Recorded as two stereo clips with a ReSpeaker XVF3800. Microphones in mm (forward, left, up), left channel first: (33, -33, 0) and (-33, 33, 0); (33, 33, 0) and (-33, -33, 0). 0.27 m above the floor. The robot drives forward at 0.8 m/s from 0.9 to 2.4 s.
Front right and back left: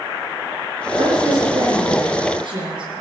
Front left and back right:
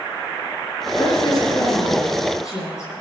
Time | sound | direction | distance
1.0 | a woman speaking | 95° left | 6.5 m